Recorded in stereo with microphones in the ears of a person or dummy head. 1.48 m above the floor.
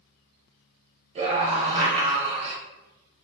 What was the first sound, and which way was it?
A scream, 40° right (ahead or behind).